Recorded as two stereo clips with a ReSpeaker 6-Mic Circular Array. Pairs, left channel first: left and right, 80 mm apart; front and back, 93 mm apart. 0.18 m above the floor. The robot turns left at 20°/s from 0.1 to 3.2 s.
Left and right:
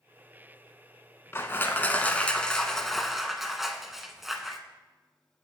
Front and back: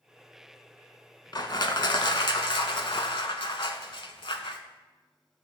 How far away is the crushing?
About 0.5 m.